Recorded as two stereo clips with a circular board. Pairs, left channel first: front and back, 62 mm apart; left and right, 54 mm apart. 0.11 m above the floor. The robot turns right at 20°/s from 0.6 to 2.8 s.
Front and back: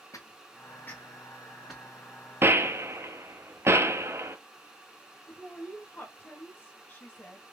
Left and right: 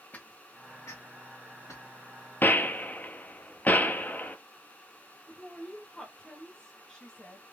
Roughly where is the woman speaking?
Ahead left.